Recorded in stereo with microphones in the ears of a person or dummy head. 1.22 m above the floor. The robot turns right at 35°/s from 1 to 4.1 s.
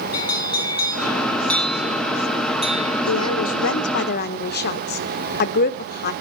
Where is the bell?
155° left, 1.0 m; by 3.1 s 130° right, 1.0 m.